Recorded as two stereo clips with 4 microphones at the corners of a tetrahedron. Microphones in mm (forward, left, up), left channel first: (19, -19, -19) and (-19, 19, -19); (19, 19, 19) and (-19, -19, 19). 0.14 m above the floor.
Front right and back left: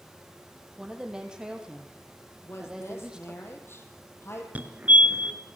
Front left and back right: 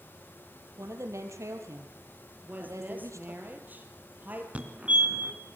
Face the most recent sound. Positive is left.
turn(degrees=175)